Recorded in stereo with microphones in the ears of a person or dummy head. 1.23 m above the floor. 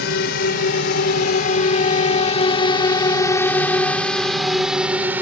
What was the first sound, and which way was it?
A drone, 65° left (ahead or behind).